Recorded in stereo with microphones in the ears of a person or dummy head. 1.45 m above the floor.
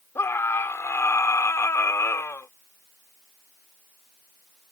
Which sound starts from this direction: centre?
A scream, at 0.1 s.